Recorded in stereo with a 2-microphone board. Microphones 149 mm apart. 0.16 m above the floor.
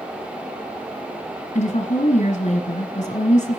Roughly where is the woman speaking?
Left.